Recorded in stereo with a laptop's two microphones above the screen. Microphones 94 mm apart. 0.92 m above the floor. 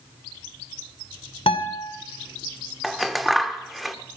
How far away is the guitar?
About 2.5 m.